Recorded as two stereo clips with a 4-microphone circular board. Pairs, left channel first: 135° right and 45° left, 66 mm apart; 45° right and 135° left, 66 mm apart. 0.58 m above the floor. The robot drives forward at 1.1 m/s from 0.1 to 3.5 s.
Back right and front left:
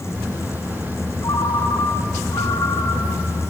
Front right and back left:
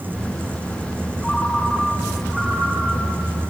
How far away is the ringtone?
About 3 m.